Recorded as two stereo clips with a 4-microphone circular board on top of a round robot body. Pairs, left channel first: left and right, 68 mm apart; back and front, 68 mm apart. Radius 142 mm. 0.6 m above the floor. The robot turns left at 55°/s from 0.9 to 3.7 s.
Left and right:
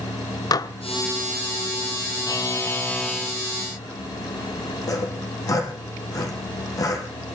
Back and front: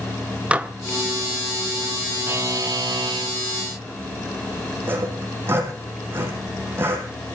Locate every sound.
0.5 s dishes clattering: 70° left, 1.4 m
2.3 s a buzzer: 55° left, 1.3 m; by 3.4 s 5° right, 1.3 m
4.9 s sawing: 55° left, 5.5 m